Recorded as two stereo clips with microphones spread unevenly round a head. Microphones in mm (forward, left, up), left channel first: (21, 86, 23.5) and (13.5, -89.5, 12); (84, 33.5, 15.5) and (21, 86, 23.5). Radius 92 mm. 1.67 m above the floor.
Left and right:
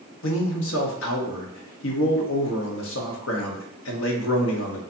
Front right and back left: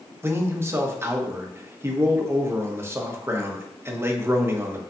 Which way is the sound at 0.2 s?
80° left.